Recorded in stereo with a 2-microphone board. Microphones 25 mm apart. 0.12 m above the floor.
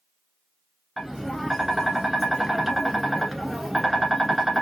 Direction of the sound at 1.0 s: Centre (ahead or behind).